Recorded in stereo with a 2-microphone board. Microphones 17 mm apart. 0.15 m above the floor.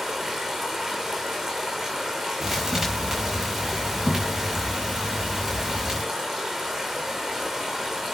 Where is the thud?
40° right (ahead or behind), 6.5 m.